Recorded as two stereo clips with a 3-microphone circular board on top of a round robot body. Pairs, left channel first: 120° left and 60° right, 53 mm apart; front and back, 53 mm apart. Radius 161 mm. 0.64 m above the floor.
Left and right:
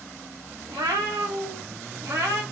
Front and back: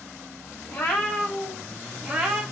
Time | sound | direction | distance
0.7 | a cat meowing | 50° right | 0.9 m